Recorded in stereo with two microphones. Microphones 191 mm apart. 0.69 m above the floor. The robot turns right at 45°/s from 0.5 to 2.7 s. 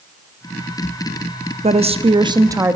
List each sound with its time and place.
1.6 s a woman speaking: 70° right, 0.6 m; by 2.8 s 20° right, 0.6 m